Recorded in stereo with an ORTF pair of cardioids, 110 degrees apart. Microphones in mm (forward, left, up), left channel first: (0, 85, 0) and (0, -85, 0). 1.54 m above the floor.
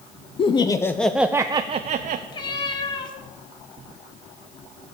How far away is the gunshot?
I don't hear a gunshot.